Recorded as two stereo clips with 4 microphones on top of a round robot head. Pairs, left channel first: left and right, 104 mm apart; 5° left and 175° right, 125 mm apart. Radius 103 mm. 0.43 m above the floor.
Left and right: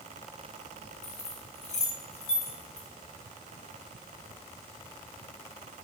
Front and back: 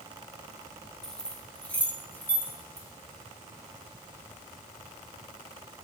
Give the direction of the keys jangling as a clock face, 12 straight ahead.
9 o'clock.